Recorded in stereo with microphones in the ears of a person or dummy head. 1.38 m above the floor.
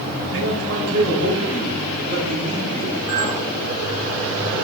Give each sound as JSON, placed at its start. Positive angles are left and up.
{"t": 0.3, "sound": "a man speaking", "side_deg": -80, "distance_m": 4.0}
{"t": 3.1, "sound": "a clink", "side_deg": -20, "distance_m": 1.0}